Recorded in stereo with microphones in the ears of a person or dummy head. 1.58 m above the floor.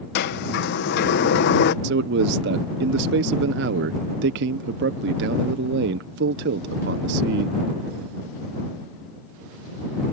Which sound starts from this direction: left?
A sliding door, at 0.1 s.